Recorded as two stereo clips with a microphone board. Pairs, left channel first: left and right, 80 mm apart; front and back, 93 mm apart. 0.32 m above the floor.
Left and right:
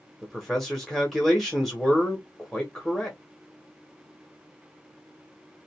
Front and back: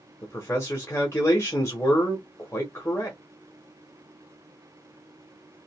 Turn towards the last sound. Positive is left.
turn(degrees=5)